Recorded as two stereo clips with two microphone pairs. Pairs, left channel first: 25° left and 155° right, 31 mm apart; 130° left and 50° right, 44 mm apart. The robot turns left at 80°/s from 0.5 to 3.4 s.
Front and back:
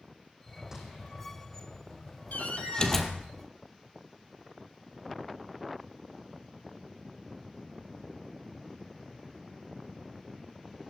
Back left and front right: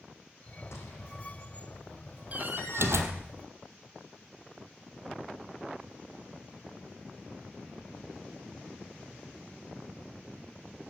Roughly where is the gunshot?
Behind left.